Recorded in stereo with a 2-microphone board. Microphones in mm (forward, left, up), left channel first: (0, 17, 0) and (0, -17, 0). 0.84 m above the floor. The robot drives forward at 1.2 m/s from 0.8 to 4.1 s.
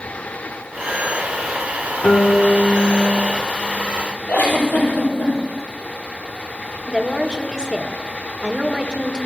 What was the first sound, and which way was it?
A guitar, 35° left (ahead or behind).